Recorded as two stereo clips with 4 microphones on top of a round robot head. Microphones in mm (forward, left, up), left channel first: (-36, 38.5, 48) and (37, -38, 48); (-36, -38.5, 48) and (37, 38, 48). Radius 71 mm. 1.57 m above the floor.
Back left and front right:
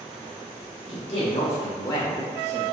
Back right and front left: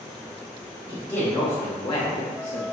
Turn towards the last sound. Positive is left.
turn(degrees=-110)